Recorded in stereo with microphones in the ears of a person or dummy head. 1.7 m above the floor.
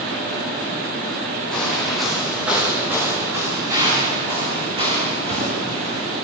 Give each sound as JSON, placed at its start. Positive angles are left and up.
{"t": 1.5, "sound": "footsteps", "side_deg": 5, "distance_m": 7.0}